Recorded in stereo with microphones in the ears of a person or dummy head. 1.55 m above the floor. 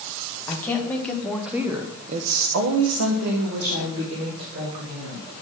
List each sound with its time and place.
0.5 s a woman speaking: 15° left (ahead or behind), 1.7 m; by 5.3 s 45° right (ahead or behind), 3 m